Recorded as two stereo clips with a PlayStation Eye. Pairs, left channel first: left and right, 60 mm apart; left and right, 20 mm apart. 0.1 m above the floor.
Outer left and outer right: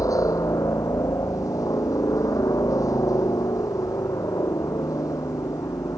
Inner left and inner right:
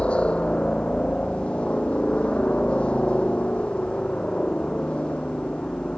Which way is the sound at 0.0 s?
70° left (ahead or behind).